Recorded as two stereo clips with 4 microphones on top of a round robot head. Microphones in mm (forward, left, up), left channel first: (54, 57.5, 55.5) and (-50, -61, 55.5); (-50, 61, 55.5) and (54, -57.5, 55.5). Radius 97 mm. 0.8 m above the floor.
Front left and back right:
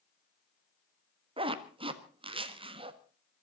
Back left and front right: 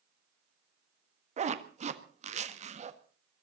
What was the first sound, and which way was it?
A zipper, 80° right.